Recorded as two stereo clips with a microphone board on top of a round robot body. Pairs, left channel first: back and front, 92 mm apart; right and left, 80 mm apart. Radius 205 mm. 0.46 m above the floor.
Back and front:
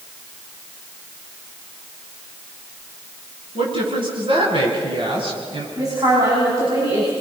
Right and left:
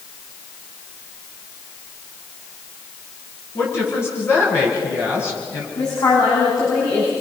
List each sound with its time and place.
3.5 s a woman speaking: 30° right, 7 m
5.8 s a woman speaking: 55° right, 6.5 m